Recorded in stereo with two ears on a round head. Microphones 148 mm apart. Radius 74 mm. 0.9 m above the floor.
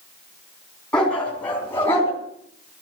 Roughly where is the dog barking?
Centre.